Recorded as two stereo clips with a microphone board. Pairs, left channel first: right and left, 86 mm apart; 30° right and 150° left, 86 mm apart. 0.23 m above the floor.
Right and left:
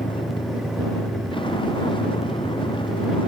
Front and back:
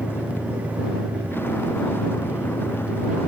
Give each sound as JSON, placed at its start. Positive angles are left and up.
{"t": 0.0, "sound": "a vehicle", "azimuth_deg": -95}